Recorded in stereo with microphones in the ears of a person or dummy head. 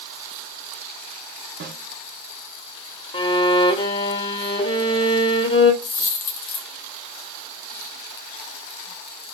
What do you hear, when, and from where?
1.6 s a snare drum: 50° right (ahead or behind), 1.0 m
3.1 s a violin: 30° left (ahead or behind), 0.9 m
5.8 s a dropped coin: 50° left (ahead or behind), 1.3 m